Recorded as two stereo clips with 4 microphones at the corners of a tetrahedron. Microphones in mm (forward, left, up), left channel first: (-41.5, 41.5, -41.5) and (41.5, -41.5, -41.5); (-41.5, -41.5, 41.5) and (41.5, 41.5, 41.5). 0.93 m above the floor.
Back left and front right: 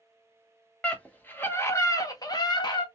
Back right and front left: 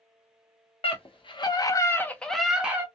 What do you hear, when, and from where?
0.8 s a scream: 150° right, 1.0 m; by 2.9 s 110° left, 0.8 m